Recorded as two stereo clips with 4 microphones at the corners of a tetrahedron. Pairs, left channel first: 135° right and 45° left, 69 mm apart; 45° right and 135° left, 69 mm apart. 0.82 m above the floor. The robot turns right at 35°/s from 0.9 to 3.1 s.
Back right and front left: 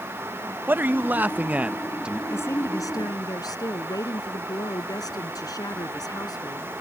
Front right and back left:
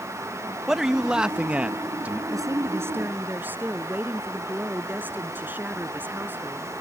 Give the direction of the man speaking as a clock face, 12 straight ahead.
10 o'clock.